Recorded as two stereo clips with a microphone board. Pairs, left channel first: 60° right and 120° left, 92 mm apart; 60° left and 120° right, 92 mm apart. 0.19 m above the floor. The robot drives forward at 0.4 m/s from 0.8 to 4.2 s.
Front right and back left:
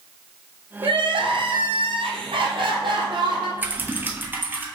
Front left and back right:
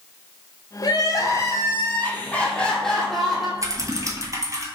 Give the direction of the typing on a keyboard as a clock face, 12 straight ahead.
6 o'clock.